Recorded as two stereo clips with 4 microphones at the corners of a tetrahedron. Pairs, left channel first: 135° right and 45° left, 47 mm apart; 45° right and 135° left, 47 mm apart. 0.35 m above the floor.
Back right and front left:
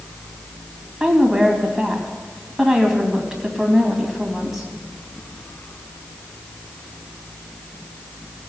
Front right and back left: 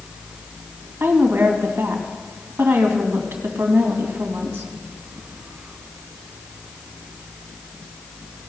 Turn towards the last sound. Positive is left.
turn(degrees=130)